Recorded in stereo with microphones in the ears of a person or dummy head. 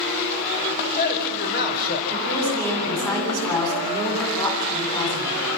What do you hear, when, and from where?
0.8 s a man speaking: 60° left (ahead or behind), 4 m
2.1 s a woman speaking: 20° left (ahead or behind), 8.5 m